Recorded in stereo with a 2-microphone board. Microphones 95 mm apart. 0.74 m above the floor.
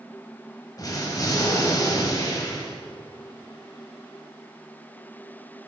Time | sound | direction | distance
0.8 | an explosion | 40° left (ahead or behind) | 1.4 m